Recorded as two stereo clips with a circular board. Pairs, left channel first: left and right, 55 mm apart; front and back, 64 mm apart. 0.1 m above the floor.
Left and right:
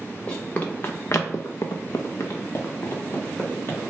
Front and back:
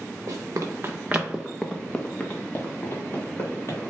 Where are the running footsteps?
155° left, 0.7 m; by 3.8 s 35° left, 1.5 m.